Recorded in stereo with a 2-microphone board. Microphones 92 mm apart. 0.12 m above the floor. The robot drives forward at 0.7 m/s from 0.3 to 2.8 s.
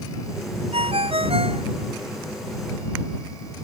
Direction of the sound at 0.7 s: 85° right.